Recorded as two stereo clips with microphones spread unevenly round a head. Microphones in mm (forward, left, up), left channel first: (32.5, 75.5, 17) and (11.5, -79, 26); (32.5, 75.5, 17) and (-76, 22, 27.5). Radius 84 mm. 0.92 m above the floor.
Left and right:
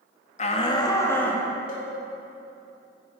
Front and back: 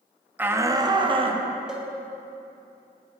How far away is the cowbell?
About 1.7 m.